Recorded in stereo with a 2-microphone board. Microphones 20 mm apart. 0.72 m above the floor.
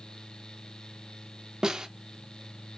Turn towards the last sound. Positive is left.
turn(degrees=-35)  # may be behind; listen again after turning